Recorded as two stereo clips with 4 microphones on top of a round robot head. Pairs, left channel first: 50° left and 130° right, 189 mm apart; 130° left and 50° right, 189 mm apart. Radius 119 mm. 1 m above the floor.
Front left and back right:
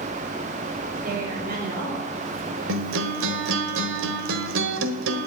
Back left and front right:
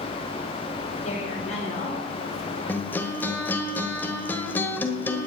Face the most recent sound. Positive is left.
turn(degrees=-150)